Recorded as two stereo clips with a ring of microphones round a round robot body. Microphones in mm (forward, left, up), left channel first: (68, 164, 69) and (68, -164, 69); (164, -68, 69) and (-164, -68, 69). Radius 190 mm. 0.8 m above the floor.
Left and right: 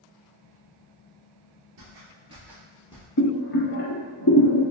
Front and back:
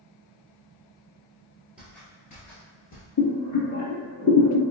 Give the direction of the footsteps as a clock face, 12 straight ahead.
3 o'clock.